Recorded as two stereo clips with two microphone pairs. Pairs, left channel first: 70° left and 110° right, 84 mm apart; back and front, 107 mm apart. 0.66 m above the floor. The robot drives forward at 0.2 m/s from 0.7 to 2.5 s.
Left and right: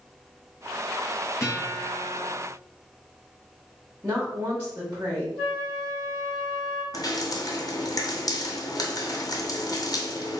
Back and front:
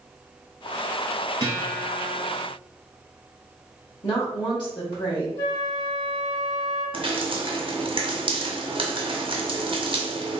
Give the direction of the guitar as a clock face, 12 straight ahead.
11 o'clock.